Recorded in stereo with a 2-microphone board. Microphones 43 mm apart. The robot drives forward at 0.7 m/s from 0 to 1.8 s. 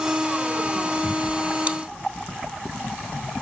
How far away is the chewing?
About 0.8 m.